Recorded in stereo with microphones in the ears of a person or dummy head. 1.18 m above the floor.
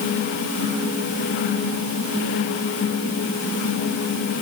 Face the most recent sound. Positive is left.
No sound to turn to.